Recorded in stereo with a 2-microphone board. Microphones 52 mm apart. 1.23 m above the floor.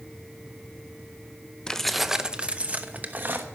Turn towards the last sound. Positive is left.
turn(degrees=-40)  # may be behind; listen again after turning